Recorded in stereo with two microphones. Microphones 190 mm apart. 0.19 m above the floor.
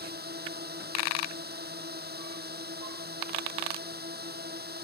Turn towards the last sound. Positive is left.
turn(degrees=-60)  # may be behind; listen again after turning